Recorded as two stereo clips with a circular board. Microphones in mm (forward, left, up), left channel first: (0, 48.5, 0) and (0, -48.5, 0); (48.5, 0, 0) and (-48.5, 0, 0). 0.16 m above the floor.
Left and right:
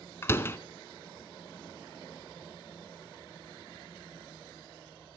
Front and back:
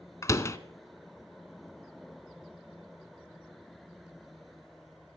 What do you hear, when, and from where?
0.2 s a door slam: 40° left, 0.9 m